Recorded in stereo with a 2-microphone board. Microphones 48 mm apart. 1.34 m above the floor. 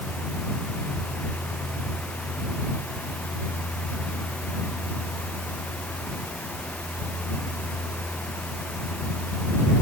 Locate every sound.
Only background noise.